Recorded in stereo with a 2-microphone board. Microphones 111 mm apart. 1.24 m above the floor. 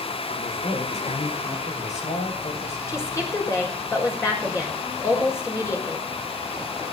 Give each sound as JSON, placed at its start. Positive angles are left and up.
{"t": 0.3, "sound": "a man speaking", "side_deg": 85, "distance_m": 4.5}
{"t": 2.9, "sound": "a woman speaking", "side_deg": 25, "distance_m": 5.0}